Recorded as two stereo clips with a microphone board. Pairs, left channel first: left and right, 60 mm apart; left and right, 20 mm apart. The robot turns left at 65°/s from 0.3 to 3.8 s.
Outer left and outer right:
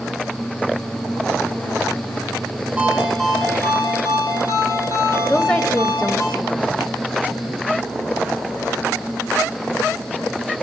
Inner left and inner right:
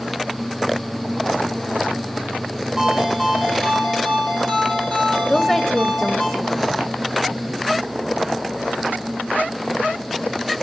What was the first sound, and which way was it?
A ringtone, 165° right.